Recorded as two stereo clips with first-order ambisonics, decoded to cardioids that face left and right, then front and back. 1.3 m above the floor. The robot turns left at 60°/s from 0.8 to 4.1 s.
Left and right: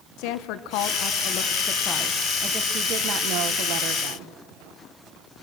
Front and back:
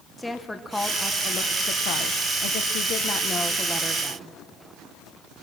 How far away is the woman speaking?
About 1.1 m.